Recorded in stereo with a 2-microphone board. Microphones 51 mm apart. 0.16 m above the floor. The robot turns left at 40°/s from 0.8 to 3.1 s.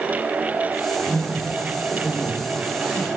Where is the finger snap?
I don't hear a finger snap.